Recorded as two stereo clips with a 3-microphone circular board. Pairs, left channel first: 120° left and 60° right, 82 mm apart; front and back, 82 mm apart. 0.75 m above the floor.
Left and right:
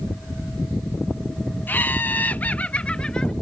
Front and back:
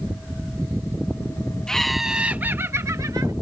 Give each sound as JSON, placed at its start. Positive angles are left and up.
{"t": 1.7, "sound": "laughter", "azimuth_deg": 75}